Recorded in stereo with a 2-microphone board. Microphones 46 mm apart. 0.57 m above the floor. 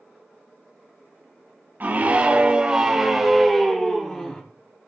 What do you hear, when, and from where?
1.8 s a scream: 40° right (ahead or behind), 3 m; by 4.4 s 20° left (ahead or behind), 4 m